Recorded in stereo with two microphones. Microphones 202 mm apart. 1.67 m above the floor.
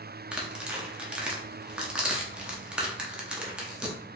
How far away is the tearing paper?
About 0.7 m.